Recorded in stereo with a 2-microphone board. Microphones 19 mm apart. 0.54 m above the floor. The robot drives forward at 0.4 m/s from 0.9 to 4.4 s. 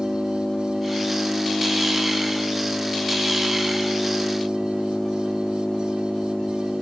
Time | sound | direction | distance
0.0 | an engine running | 85° left | 9.5 m